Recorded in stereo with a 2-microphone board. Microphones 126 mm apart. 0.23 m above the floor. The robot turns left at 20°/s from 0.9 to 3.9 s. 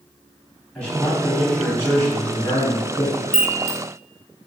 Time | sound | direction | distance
0.8 | a man speaking | 165° left | 1.2 m
3.3 | a chime | 75° left (ahead or behind) | 0.7 m